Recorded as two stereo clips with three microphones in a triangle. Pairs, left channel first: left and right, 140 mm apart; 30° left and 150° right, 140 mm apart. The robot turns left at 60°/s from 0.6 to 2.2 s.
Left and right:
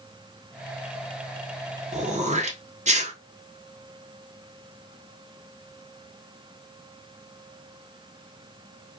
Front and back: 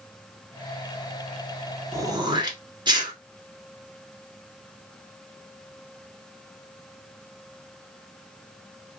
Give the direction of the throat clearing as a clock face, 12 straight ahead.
3 o'clock.